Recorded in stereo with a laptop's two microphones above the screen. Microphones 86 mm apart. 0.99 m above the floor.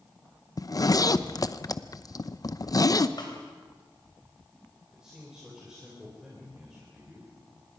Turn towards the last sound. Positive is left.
turn(degrees=-10)  # may be behind; listen again after turning